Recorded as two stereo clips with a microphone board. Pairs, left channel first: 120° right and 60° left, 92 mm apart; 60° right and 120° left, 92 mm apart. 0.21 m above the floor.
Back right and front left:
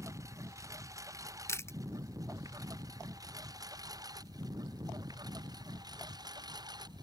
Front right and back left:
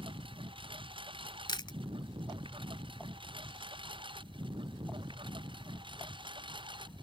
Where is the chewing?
65° right.